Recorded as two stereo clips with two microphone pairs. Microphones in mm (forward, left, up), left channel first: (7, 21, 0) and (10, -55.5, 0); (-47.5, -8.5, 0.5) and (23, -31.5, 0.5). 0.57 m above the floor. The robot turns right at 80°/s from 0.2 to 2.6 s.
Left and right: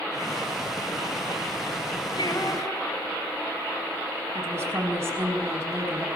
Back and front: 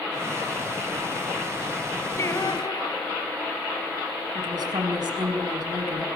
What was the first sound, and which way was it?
Singing, 105° left.